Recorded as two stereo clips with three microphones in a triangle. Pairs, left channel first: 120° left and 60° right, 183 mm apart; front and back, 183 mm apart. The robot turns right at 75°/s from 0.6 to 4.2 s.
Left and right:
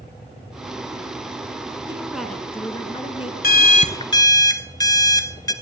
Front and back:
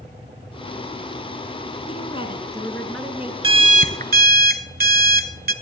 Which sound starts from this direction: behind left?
An alarm clock, at 3.4 s.